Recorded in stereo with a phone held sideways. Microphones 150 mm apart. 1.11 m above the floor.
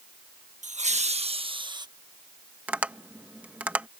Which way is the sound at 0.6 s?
55° right (ahead or behind).